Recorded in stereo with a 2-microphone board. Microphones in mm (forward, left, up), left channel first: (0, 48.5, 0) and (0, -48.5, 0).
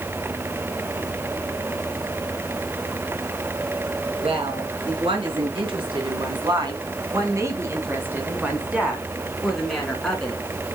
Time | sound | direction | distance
4.2 | a woman speaking | 70° right (ahead or behind) | 4 m